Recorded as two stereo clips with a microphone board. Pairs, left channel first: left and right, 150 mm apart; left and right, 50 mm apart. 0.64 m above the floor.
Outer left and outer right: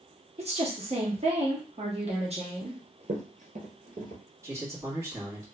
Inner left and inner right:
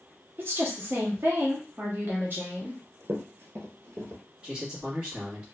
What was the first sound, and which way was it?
A woman speaking, 40° right (ahead or behind).